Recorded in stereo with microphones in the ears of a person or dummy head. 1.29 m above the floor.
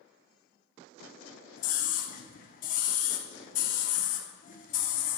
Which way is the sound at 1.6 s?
40° left (ahead or behind).